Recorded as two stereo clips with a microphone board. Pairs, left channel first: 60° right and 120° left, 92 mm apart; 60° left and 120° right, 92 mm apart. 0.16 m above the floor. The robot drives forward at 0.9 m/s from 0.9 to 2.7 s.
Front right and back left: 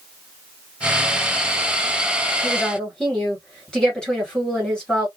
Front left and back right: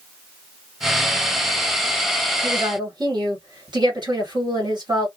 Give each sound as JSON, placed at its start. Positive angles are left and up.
{"t": 2.4, "sound": "a woman speaking", "azimuth_deg": -135, "distance_m": 1.9}